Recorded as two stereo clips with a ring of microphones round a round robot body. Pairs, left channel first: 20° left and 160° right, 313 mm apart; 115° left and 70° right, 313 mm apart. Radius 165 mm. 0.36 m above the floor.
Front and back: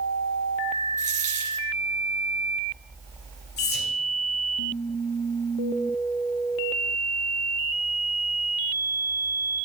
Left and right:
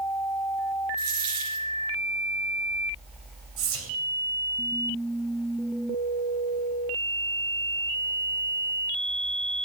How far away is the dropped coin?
About 3.5 m.